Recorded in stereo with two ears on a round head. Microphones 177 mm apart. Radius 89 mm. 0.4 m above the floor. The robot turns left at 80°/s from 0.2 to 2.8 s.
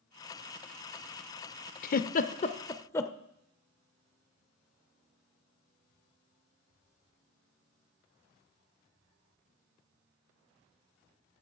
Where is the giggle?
45° left (ahead or behind), 0.5 m; by 3.1 s 15° left (ahead or behind), 0.5 m.